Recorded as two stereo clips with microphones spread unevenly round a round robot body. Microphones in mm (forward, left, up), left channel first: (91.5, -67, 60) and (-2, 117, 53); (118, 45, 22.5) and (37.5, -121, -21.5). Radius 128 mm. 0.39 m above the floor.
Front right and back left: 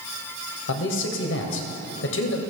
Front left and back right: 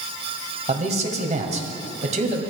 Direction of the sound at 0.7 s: 75° right.